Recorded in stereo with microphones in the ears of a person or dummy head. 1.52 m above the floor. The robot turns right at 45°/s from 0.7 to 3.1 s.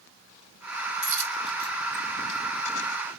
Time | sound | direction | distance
1.0 | a dropped coin | 45° right (ahead or behind) | 3 m